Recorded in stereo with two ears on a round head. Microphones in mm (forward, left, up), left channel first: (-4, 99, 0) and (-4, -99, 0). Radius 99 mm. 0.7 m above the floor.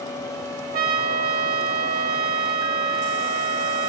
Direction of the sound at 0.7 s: 45° right (ahead or behind).